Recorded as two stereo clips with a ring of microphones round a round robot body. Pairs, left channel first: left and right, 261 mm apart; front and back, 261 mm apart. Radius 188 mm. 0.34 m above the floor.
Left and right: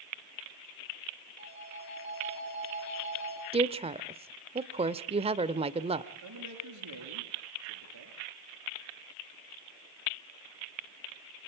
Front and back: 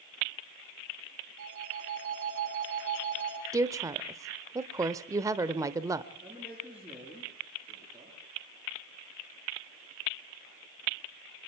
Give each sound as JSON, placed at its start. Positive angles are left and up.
{"t": 1.4, "sound": "a phone ringing", "azimuth_deg": 140, "distance_m": 8.0}
{"t": 3.5, "sound": "a woman speaking", "azimuth_deg": -120, "distance_m": 0.8}
{"t": 6.2, "sound": "a man speaking", "azimuth_deg": -95, "distance_m": 7.5}